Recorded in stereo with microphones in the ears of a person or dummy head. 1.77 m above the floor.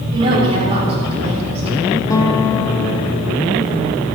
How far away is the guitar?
About 1.3 m.